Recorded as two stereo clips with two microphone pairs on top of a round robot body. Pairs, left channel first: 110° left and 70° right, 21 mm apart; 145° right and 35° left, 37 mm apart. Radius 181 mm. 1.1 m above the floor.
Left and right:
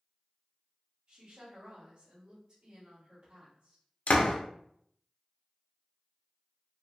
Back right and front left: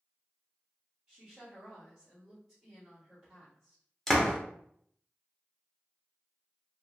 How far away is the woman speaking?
About 1.4 m.